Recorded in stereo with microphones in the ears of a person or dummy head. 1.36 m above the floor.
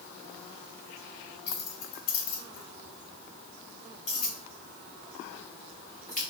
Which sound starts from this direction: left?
Keys jangling, at 1.5 s.